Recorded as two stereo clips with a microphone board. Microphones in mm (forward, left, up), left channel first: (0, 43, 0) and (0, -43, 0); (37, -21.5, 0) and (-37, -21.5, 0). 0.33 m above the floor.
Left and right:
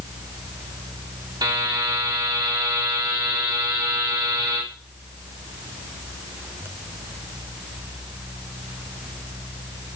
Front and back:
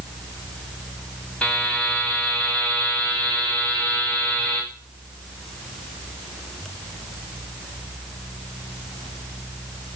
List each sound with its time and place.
1.4 s a buzzer: 75° right, 2 m